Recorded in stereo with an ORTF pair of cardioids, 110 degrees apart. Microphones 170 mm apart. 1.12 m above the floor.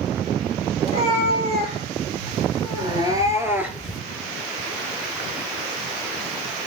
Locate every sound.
0.8 s a cat meowing: 45° right, 3.5 m; by 4.0 s straight ahead, 1.4 m